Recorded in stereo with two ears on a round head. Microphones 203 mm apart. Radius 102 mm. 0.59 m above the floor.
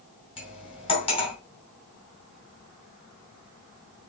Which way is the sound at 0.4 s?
25° left (ahead or behind).